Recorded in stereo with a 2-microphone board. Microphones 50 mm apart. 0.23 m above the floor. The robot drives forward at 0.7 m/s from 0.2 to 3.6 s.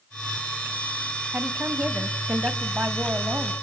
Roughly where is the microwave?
No microwave in this recording.